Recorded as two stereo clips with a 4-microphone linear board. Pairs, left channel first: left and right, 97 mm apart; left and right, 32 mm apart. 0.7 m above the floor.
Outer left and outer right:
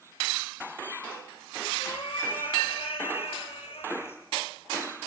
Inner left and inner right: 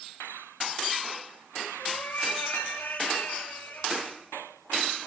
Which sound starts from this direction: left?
A cat meowing, at 1.8 s.